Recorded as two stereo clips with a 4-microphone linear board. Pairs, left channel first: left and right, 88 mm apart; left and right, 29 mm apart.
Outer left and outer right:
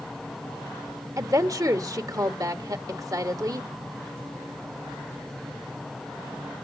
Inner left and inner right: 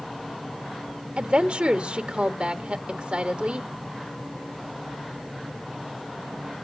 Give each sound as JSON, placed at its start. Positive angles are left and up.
{"t": 1.2, "sound": "a woman speaking", "side_deg": -45, "distance_m": 1.5}